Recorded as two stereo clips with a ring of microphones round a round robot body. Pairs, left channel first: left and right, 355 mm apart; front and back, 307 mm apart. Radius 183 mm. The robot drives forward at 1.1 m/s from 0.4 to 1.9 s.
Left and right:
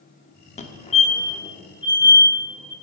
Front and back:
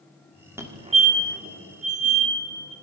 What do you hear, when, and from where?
0.6 s a fire alarm: 115° left, 1.7 m; by 2.7 s 165° left, 2.5 m